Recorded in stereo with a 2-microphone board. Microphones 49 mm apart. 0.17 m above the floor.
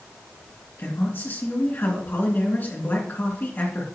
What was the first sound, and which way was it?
A man speaking, 45° left (ahead or behind).